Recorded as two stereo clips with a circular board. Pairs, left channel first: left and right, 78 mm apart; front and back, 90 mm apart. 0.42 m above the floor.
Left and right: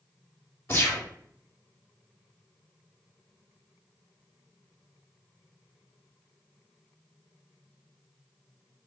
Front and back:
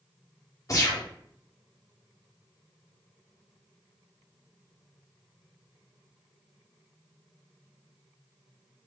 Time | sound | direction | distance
0.7 | a gunshot | 45° left | 0.9 m